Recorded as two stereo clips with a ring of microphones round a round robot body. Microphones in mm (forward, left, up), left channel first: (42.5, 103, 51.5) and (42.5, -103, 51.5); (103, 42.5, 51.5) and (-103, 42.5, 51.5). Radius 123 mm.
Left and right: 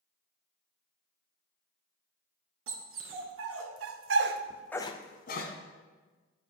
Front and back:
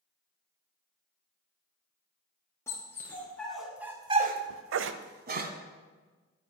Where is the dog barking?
80° right, 2 m; by 5.5 s 135° left, 1.3 m.